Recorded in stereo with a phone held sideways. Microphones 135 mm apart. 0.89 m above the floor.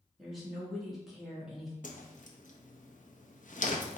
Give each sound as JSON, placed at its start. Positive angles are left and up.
{"t": 0.2, "sound": "a woman speaking", "side_deg": 0, "distance_m": 1.6}
{"t": 1.8, "sound": "a whoosh", "side_deg": 70, "distance_m": 0.6}